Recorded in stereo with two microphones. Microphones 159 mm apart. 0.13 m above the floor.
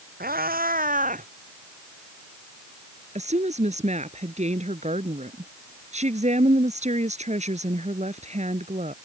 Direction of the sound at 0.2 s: 85° right.